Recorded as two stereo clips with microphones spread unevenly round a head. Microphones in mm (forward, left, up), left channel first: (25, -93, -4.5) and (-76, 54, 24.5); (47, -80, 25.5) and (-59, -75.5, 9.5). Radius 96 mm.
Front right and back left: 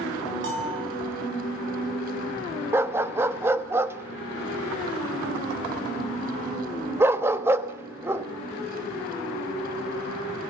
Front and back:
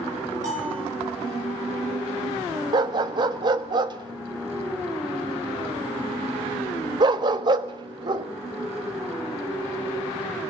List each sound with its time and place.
0.4 s a bell: 135° left, 8.5 m
2.7 s a dog barking: 170° left, 1.2 m